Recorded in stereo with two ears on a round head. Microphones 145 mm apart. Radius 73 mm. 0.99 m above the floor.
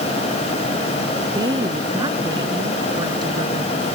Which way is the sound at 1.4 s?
25° right (ahead or behind).